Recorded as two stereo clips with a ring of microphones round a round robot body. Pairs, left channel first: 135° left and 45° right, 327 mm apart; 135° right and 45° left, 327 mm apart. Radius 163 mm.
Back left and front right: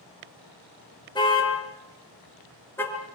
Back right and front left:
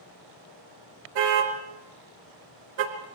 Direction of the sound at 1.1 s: 60° left.